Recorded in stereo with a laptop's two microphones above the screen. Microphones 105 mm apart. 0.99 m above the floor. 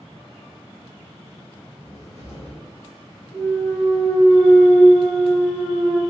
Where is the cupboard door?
80° left, 1.1 m.